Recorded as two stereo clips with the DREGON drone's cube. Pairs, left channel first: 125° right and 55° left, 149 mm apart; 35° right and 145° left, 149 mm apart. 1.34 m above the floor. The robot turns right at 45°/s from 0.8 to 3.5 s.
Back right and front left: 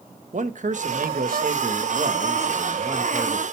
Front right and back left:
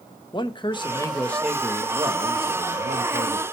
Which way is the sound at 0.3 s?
25° left.